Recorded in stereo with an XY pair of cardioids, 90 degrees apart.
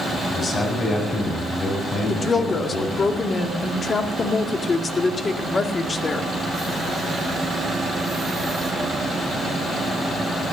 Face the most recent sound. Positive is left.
turn(degrees=35)